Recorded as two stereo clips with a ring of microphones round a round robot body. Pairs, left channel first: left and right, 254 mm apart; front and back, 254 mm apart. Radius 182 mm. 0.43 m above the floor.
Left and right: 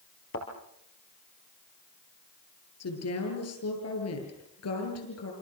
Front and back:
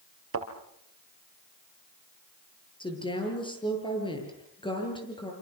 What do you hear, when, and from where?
0.3 s a thud: 150° left, 4 m
2.8 s a woman speaking: 70° left, 9 m